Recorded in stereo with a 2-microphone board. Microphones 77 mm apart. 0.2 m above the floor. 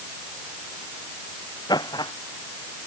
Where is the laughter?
65° left (ahead or behind).